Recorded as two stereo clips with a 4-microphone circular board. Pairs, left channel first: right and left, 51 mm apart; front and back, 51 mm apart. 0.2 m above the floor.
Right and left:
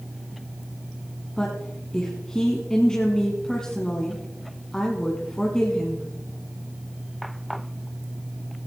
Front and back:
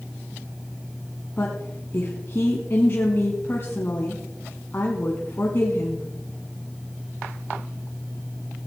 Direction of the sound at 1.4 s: 20° right.